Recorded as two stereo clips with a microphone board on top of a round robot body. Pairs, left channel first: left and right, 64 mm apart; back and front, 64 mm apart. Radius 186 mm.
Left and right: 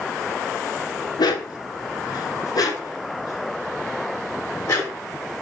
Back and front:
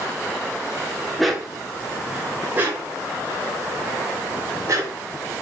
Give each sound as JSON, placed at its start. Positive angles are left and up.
{"t": 1.2, "sound": "a dog barking", "azimuth_deg": 90, "distance_m": 1.1}